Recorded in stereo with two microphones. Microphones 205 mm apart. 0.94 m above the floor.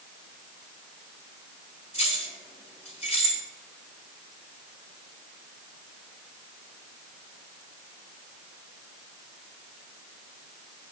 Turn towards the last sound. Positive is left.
turn(degrees=30)  # may be behind; listen again after turning